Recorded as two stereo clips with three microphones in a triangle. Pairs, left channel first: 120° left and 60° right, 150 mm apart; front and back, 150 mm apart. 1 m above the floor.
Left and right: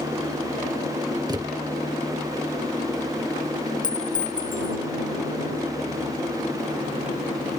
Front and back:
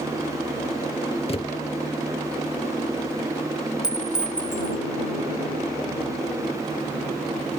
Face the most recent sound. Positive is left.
turn(degrees=95)